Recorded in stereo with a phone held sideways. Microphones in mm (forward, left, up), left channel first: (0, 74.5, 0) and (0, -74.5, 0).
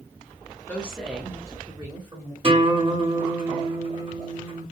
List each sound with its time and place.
0.7 s a woman speaking: 10° left (ahead or behind), 0.8 m; by 2.3 s 30° right (ahead or behind), 1.2 m
2.4 s a guitar: 35° right (ahead or behind), 1.0 m